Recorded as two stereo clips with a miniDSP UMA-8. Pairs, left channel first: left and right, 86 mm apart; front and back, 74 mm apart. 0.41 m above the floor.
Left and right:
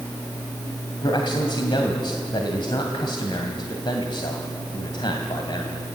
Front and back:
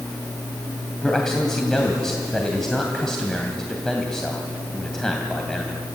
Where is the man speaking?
85° left, 2.5 m.